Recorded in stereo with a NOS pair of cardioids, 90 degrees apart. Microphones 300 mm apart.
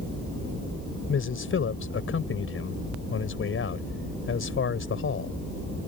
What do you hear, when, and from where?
1.1 s a man speaking: 45° left